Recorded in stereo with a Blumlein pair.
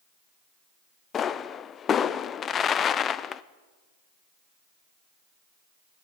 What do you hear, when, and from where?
1.1 s a pop: 25° left, 0.6 m